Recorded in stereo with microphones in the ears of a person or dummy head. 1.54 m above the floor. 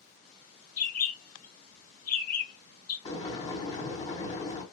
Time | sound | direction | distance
0.8 | a bird | 40° left (ahead or behind) | 0.5 m
3.0 | boiling | 25° left (ahead or behind) | 1.8 m